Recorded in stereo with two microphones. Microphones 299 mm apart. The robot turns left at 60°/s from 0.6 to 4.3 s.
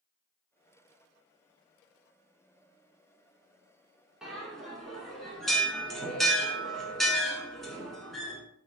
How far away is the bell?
About 0.6 m.